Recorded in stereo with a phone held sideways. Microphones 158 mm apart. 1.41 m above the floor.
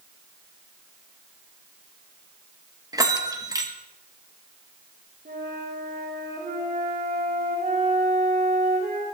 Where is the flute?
80° right, 4 m.